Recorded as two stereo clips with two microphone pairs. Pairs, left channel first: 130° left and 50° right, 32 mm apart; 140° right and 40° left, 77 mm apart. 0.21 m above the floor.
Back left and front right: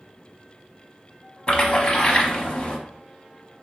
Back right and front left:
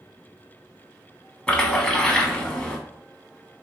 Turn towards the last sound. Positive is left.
turn(degrees=155)